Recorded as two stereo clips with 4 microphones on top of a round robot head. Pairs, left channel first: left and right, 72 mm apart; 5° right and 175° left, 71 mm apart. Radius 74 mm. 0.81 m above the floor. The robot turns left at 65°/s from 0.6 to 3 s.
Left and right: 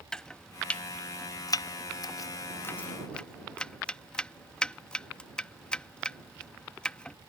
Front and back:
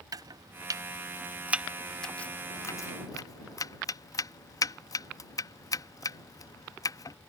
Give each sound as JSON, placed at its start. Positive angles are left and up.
{"t": 0.1, "sound": "chopping", "azimuth_deg": 165}